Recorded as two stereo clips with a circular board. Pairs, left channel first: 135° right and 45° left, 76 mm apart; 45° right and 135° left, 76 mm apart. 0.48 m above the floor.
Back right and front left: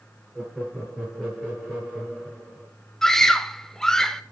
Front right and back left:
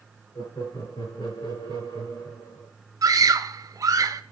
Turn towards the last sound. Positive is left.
turn(degrees=145)